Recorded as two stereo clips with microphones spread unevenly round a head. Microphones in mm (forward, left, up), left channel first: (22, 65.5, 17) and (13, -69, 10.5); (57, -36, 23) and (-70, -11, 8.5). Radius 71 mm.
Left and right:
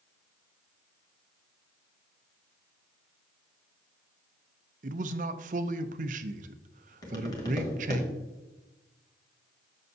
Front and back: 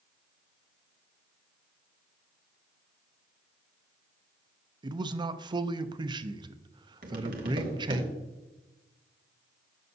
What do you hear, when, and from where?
4.8 s a man speaking: 135° right, 0.6 m
7.0 s tapping: 145° left, 1.4 m